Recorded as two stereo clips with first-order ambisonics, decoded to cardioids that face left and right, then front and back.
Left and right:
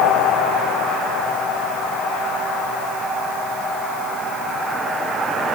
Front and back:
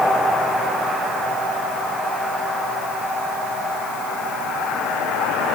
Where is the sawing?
No sawing in this recording.